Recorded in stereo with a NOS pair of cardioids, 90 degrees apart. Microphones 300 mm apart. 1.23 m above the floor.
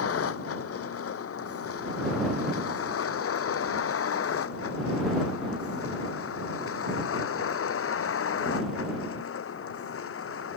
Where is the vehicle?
55° left; by 10.6 s 50° left.